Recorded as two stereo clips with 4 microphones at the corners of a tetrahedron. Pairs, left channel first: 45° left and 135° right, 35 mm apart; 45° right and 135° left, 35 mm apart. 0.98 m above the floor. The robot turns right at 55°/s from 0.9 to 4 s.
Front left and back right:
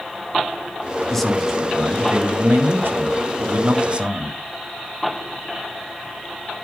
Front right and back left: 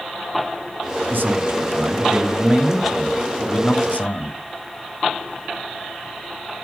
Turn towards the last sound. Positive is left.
turn(degrees=-80)